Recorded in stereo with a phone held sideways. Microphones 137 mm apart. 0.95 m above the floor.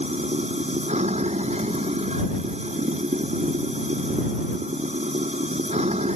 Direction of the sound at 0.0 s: 55° right (ahead or behind).